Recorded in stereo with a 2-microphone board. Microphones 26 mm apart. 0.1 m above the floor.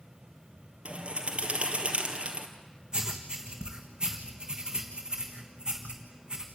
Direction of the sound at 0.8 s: 45° right (ahead or behind).